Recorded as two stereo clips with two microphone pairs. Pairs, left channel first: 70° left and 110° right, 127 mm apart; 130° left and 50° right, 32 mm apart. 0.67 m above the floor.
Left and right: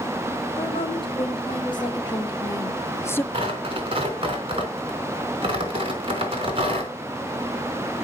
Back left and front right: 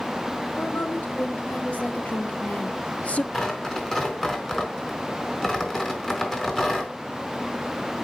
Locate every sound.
0.6 s a woman speaking: 115° left, 3.5 m; by 3.2 s 140° left, 1.0 m
3.3 s tearing paper: 155° right, 4 m